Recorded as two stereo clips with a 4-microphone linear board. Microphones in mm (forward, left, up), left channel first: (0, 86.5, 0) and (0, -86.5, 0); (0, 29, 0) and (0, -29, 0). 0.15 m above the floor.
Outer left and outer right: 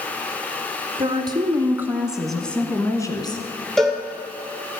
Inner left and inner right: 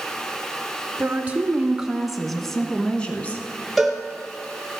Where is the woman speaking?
30° right (ahead or behind), 1.4 m; by 3.5 s 30° left (ahead or behind), 1.4 m.